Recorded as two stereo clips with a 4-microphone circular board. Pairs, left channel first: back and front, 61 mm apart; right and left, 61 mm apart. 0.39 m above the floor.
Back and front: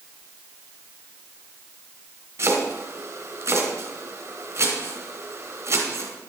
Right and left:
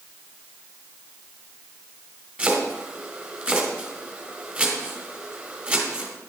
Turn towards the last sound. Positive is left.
turn(degrees=25)